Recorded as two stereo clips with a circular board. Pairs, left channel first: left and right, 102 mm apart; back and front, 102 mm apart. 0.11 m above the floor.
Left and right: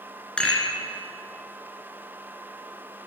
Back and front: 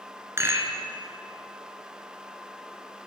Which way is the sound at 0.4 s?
20° left.